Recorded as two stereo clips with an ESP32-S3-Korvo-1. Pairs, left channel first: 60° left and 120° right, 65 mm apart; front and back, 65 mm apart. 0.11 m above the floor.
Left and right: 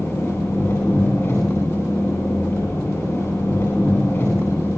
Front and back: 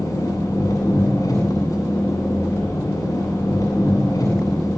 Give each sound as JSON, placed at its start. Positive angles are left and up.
{"t": 0.0, "sound": "an engine running", "azimuth_deg": 20, "distance_m": 9.5}